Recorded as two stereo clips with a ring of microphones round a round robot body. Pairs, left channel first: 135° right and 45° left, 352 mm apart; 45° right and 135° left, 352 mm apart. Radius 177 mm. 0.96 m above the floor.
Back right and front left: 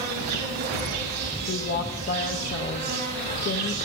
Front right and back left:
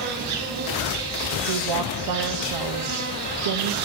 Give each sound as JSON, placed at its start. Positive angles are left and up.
{"t": 0.0, "sound": "an insect", "azimuth_deg": 90, "distance_m": 3.5}
{"t": 1.5, "sound": "a woman speaking", "azimuth_deg": 165, "distance_m": 0.9}